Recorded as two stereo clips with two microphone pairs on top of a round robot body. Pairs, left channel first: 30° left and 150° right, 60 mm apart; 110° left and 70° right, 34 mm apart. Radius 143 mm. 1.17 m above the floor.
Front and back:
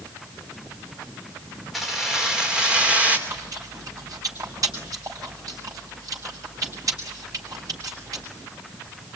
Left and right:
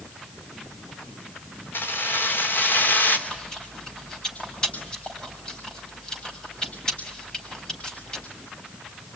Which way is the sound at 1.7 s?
120° left.